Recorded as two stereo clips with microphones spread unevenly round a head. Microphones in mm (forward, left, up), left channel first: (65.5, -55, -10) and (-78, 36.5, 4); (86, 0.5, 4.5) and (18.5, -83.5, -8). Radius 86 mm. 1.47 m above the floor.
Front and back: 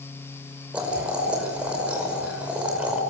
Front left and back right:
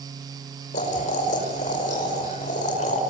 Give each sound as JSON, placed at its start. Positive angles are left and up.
{"t": 0.7, "sound": "boiling", "azimuth_deg": 65, "distance_m": 5.5}